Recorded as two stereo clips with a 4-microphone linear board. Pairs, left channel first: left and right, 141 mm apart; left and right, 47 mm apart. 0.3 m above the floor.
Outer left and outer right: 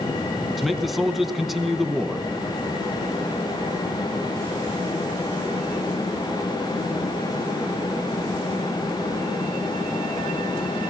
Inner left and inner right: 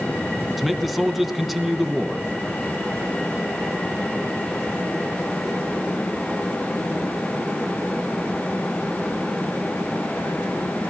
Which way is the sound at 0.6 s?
Centre (ahead or behind).